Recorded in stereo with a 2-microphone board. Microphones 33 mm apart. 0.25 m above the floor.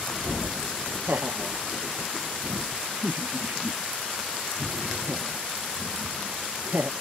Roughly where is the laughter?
Right.